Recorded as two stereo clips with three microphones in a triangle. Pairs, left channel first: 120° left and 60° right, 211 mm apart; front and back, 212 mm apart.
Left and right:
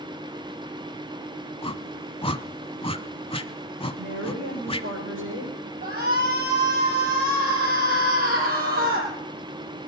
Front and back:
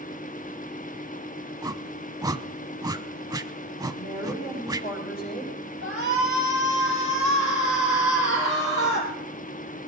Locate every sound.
1.6 s a whoosh: 130° left, 0.7 m
4.0 s a woman speaking: 45° right, 8 m
5.8 s a shout: 30° right, 4.5 m